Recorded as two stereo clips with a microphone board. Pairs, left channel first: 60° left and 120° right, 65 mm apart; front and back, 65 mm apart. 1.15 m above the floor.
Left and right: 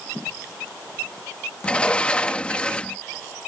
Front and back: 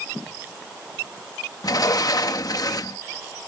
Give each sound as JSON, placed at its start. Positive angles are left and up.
{"t": 1.6, "sound": "a sliding door", "azimuth_deg": -15}